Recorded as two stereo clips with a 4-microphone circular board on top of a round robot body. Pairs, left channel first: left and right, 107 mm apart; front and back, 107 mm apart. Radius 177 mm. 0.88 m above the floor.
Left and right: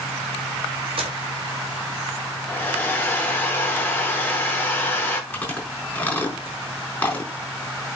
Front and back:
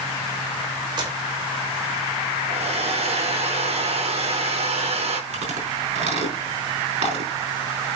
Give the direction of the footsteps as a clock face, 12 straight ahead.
4 o'clock.